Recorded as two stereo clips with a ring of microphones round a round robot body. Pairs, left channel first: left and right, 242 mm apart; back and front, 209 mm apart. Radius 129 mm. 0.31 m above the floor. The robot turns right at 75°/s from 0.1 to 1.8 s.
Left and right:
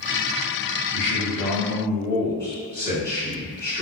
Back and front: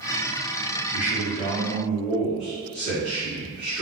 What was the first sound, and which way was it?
A man speaking, 100° left.